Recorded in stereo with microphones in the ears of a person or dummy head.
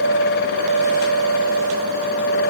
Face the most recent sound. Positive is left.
No sound to turn to.